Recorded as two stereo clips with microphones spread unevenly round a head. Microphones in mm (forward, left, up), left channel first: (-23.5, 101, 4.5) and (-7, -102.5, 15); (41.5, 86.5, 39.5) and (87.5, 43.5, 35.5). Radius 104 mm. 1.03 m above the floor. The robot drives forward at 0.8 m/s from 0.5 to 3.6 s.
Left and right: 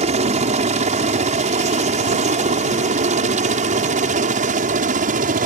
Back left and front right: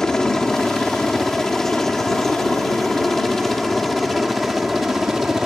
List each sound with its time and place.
0.0 s a helicopter: 140° right; by 5.5 s 130° right